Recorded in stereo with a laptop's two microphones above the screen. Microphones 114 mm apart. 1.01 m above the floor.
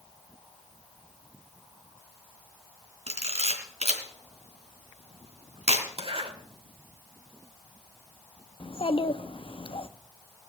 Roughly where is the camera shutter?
Right.